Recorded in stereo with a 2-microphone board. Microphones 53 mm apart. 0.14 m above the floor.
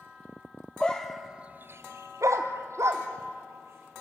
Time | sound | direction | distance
0.8 | a dog barking | 15° left (ahead or behind) | 1.2 m